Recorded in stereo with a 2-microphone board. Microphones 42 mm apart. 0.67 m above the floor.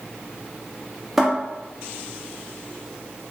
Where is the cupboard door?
5° right (ahead or behind), 0.9 m.